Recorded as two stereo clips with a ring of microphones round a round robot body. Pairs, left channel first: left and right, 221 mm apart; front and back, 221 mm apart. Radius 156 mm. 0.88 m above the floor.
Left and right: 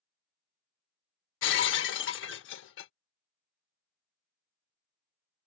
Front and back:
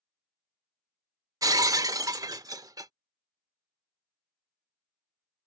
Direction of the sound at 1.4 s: 105° left.